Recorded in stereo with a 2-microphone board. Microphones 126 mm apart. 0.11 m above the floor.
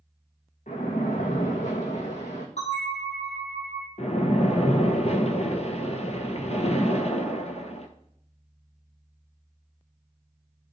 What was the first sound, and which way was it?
A splash, 75° left (ahead or behind).